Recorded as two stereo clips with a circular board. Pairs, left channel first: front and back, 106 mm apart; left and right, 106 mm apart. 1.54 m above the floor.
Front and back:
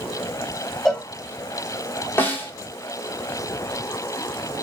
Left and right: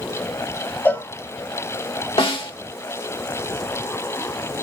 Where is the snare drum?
70° left, 2.5 m.